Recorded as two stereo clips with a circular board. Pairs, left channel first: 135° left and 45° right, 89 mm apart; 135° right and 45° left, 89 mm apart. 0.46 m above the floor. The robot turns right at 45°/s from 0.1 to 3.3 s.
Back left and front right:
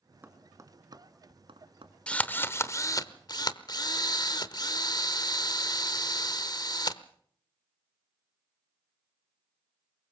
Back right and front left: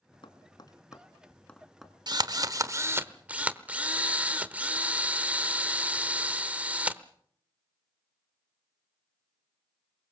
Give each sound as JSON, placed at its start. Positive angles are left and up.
{"t": 0.2, "sound": "tapping", "azimuth_deg": -115, "distance_m": 1.5}
{"t": 2.1, "sound": "a drill", "azimuth_deg": 60, "distance_m": 1.0}